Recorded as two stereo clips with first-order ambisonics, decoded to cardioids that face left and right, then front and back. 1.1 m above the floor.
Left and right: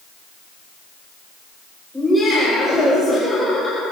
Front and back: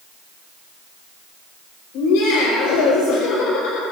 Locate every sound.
1.9 s laughter: 5° left, 5 m; by 3.8 s 20° left, 5 m